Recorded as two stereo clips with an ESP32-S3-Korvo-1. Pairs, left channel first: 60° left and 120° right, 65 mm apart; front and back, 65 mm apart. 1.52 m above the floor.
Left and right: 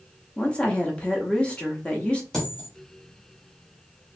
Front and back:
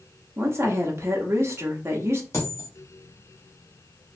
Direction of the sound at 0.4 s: 135° left.